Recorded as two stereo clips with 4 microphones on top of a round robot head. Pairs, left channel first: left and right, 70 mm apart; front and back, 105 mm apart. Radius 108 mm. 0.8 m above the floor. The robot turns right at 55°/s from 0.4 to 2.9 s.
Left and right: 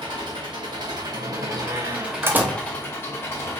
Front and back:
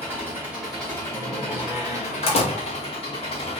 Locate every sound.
0.0 s an engine running: 105° right, 2 m; by 3.6 s 35° left, 2 m
1.1 s a door slam: 90° right, 1.2 m; by 2.6 s 10° right, 1.2 m